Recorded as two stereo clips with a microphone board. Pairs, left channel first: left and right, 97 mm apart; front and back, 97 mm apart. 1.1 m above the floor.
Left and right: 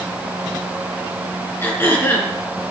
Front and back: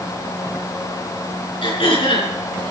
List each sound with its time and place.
1.6 s throat clearing: 25° left, 5 m